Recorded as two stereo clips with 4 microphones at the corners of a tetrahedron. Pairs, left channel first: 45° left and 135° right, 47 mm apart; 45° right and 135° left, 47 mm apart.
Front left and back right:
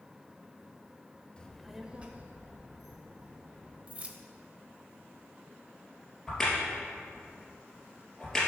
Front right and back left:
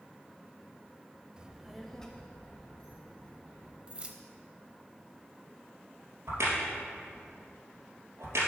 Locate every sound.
1.4 s a child speaking: 90° left, 0.6 m; by 3.8 s 105° right, 1.8 m
3.9 s keys jangling: straight behind, 0.7 m
6.3 s a crack: 125° left, 2.5 m